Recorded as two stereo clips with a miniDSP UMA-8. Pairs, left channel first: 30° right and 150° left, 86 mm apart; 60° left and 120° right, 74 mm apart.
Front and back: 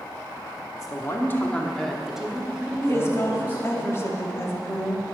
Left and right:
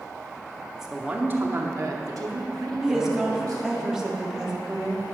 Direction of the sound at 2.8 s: 45° right.